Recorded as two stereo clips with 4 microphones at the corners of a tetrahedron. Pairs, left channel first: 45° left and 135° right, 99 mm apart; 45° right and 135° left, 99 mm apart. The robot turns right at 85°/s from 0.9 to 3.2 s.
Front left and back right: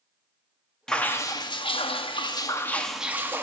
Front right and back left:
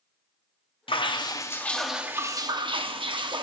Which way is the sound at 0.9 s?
35° right.